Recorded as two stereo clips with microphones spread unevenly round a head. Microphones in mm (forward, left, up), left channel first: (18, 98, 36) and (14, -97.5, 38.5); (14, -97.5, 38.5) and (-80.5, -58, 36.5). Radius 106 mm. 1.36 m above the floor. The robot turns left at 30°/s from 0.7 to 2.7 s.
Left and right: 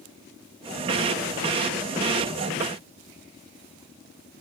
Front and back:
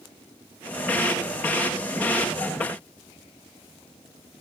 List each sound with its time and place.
Only background noise.